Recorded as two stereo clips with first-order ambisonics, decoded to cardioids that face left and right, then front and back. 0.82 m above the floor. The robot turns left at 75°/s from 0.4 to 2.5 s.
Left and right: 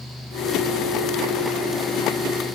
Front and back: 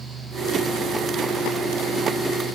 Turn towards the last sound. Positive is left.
No sound to turn to.